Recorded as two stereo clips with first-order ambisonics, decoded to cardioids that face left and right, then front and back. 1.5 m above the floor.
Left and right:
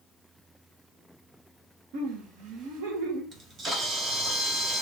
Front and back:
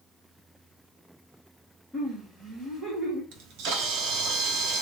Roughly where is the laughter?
Right.